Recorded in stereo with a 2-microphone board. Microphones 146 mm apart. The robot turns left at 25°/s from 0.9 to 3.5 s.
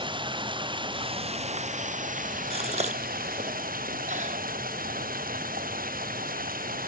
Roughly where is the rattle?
No rattle in this recording.